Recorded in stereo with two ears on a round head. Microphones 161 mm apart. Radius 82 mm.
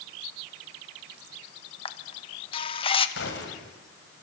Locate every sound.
1.9 s a camera shutter: 30° left (ahead or behind), 1.5 m
3.2 s a gunshot: 70° left (ahead or behind), 5 m